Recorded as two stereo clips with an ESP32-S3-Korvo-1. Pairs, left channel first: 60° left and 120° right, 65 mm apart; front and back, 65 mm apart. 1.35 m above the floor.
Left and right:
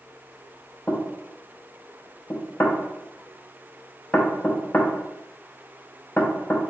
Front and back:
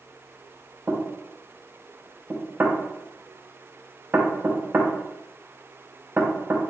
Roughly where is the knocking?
Behind left.